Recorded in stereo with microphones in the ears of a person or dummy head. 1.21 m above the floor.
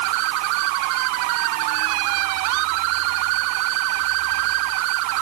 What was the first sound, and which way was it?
Only background noise.